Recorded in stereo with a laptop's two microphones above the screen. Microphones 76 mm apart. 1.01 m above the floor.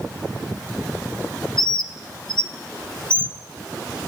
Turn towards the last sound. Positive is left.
turn(degrees=85)